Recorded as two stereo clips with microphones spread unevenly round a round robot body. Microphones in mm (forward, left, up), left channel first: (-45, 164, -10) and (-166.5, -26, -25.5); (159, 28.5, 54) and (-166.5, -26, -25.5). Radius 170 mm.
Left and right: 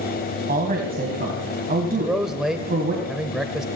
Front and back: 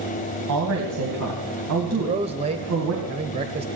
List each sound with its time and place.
0.5 s a woman speaking: 160° right, 2.5 m
1.9 s a man speaking: 155° left, 1.1 m